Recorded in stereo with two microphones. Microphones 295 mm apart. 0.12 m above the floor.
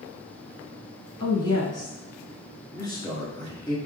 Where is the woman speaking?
15° left (ahead or behind), 1.0 m.